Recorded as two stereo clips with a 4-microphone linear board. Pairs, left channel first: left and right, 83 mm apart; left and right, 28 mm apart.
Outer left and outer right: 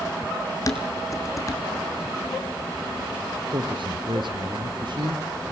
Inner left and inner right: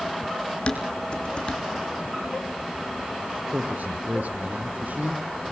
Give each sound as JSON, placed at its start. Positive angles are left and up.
{"t": 0.7, "sound": "dishes clattering", "side_deg": 40, "distance_m": 3.5}
{"t": 3.5, "sound": "a man speaking", "side_deg": -70, "distance_m": 4.0}